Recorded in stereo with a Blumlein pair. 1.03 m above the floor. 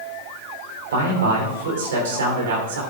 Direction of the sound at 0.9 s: 60° right.